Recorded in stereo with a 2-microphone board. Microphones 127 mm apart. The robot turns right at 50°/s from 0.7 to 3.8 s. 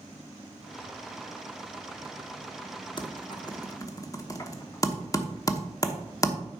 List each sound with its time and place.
3.0 s typing on a keyboard: 40° left (ahead or behind), 0.9 m; by 6.3 s 30° left (ahead or behind), 0.9 m